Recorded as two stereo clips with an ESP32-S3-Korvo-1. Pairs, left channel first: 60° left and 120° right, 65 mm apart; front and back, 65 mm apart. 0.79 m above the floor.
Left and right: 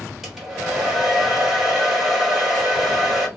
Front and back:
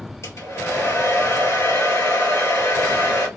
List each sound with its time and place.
0.2 s a hair dryer: 35° right, 1.9 m